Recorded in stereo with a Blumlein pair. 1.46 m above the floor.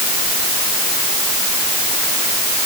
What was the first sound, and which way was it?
Only background noise.